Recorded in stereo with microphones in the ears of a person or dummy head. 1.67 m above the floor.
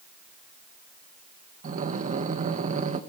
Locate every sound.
1.6 s breathing: 45° right (ahead or behind), 1.5 m